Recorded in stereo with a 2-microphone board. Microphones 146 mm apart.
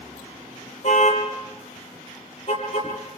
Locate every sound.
0.8 s a car horn: 50° left (ahead or behind), 9 m; by 3.2 s 40° left (ahead or behind), 9 m